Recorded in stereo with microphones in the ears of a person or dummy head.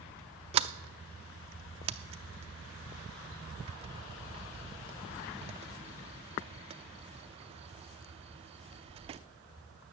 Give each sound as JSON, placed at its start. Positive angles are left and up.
{"t": 0.5, "sound": "a sliding door", "side_deg": -35, "distance_m": 0.5}